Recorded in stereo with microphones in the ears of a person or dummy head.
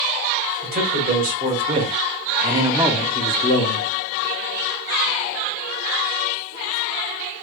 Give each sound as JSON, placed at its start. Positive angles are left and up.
{"t": 0.6, "sound": "a man speaking", "side_deg": -45, "distance_m": 1.7}